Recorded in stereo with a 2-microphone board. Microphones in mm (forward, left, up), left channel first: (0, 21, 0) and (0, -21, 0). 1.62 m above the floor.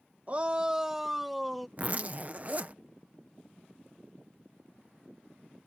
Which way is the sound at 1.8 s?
35° right (ahead or behind).